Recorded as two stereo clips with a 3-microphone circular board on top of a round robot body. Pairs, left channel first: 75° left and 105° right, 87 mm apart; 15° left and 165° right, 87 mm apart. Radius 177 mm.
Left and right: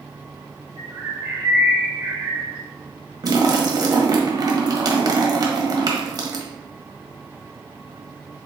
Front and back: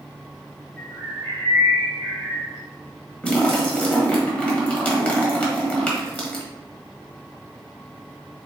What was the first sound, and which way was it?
A bird, 35° right.